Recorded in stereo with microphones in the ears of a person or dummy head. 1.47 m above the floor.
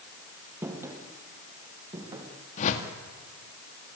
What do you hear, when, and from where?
0.6 s footsteps: 20° right (ahead or behind), 2.5 m; by 2.3 s 30° right (ahead or behind), 5 m
2.6 s a whoosh: 45° left (ahead or behind), 2 m